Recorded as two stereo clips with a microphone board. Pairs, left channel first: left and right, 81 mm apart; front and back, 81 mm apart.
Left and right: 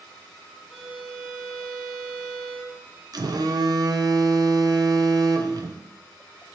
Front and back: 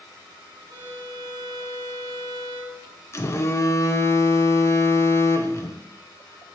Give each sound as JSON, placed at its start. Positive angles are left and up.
{"t": 0.7, "sound": "a violin", "azimuth_deg": -170, "distance_m": 1.8}
{"t": 3.1, "sound": "a phone buzzing", "azimuth_deg": -55, "distance_m": 0.6}